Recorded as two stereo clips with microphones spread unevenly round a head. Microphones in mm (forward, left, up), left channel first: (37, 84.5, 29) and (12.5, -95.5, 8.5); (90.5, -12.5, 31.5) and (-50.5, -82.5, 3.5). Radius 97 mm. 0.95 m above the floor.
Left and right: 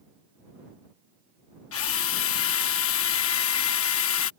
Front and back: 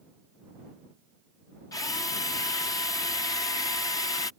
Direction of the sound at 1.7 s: 100° left.